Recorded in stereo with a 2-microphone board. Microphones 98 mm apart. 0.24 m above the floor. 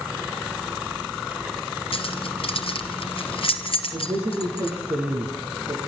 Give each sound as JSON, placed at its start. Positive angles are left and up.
{"t": 1.9, "sound": "keys jangling", "side_deg": 65, "distance_m": 3.0}
{"t": 3.9, "sound": "a man speaking", "side_deg": -40, "distance_m": 8.0}